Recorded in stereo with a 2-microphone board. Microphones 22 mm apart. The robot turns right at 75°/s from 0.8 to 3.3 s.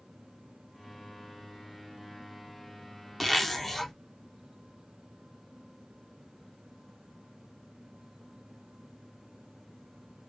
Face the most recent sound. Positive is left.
turn(degrees=15)  # may be behind; listen again after turning